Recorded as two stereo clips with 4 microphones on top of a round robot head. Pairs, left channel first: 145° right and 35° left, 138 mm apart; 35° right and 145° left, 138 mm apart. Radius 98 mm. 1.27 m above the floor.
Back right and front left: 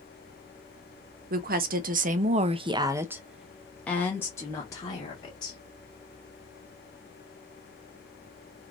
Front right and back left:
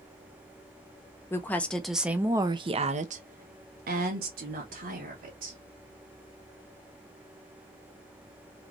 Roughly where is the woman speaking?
Ahead left.